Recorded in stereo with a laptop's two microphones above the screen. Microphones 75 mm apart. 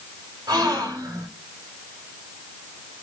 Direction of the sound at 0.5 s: 65° right (ahead or behind).